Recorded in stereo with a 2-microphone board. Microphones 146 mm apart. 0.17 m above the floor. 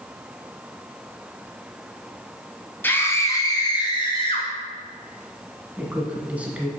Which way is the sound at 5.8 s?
10° right (ahead or behind).